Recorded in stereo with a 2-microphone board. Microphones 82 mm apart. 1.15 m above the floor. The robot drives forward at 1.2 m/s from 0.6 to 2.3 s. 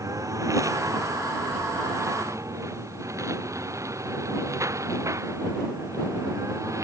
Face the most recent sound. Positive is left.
turn(degrees=-35)  # may be behind; listen again after turning